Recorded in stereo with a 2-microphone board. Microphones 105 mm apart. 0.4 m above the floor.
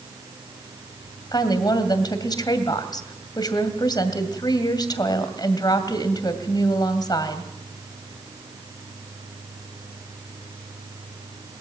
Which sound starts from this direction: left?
A woman speaking, at 1.3 s.